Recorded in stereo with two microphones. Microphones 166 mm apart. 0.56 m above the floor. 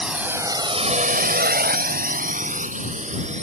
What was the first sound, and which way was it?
A drone, 5° right (ahead or behind).